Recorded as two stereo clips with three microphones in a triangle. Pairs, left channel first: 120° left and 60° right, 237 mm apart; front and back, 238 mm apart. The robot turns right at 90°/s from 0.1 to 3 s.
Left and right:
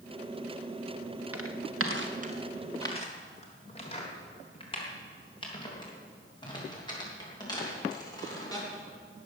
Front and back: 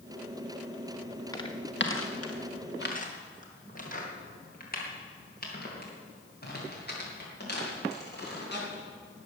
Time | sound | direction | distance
1.3 | footsteps | 75° right | 1.9 m